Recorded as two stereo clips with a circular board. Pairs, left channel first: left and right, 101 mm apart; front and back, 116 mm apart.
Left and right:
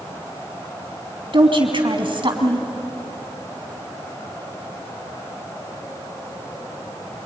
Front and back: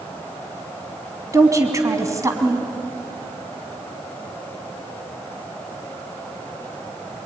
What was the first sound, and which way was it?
A woman speaking, 120° right.